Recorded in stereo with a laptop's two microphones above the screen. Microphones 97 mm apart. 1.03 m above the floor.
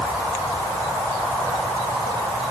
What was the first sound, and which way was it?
Only background noise.